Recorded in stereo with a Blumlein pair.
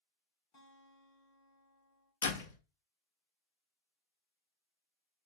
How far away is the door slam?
About 1.1 m.